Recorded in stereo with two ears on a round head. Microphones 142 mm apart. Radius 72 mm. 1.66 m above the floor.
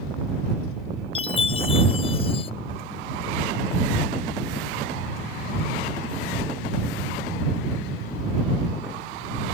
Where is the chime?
35° left (ahead or behind).